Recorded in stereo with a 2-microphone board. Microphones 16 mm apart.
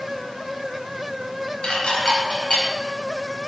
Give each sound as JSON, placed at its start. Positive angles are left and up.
{"t": 1.6, "sound": "dishes clattering", "side_deg": 85, "distance_m": 3.5}